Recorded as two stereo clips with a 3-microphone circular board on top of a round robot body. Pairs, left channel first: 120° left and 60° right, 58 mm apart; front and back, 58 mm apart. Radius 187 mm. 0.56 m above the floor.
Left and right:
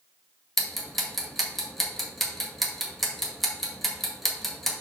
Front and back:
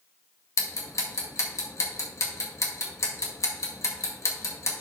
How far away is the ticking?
About 1.9 m.